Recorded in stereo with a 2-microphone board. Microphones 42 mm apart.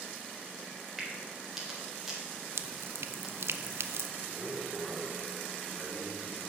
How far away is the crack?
About 4 m.